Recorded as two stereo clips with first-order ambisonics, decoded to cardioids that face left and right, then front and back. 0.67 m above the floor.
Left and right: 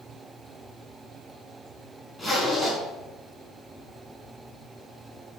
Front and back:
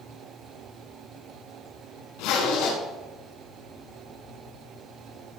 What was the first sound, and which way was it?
A zipper, 10° left.